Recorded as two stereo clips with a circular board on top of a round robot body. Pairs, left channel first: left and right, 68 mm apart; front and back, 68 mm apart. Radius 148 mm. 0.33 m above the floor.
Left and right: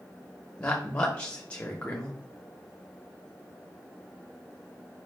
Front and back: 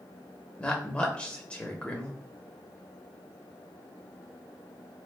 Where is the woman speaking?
45° left, 1.0 m.